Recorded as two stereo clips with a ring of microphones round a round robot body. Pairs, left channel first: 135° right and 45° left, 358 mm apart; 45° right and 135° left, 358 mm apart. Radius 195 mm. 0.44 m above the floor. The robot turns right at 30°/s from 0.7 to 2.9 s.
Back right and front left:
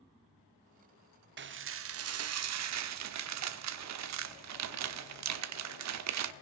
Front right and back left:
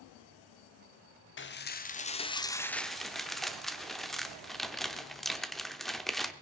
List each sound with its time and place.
1.4 s dishes clattering: straight ahead, 0.9 m; by 6.3 s 45° left, 0.9 m